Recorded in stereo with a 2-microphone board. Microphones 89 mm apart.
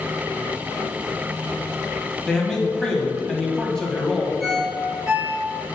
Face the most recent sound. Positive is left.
turn(degrees=-10)  # may be behind; listen again after turning